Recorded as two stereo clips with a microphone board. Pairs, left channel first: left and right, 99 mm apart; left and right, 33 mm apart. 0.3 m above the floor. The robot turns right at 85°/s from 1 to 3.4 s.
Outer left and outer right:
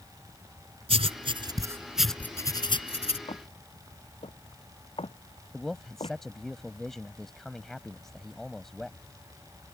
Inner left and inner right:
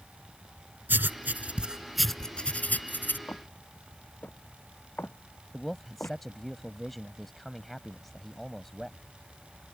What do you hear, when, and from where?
0.9 s writing: 80° right; by 3.2 s 80° left
3.3 s footsteps: 70° left (ahead or behind)
5.5 s a man speaking: 5° left (ahead or behind)